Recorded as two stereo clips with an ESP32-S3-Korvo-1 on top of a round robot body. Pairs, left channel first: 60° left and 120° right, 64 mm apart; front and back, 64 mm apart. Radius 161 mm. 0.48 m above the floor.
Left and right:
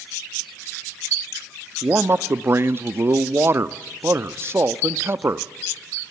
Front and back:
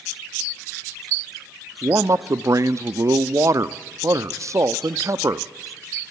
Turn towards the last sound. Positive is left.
turn(degrees=-160)